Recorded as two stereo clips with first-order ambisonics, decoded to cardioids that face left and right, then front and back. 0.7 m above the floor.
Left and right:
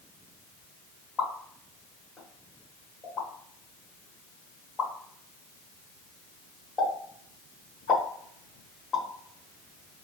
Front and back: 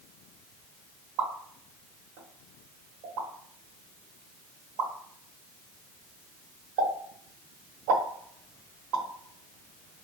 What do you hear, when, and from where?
1.2 s a pop: 160° left, 1.3 m